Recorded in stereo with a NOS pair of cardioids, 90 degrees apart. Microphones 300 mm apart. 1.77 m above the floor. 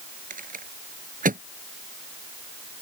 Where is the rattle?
30° right.